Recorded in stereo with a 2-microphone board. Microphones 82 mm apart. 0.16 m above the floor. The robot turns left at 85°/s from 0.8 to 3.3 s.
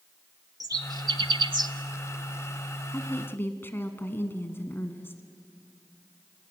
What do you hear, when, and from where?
0.6 s a bird: 50° right (ahead or behind), 0.8 m
2.9 s a woman speaking: 25° left (ahead or behind), 1.4 m; by 5.2 s 30° left (ahead or behind), 1.4 m